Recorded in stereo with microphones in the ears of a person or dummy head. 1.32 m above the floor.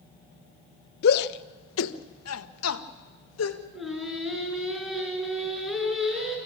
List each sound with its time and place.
1.0 s a shout: 55° left (ahead or behind), 0.9 m; by 3.6 s 85° left, 1.9 m
3.7 s singing: 5° left (ahead or behind), 5 m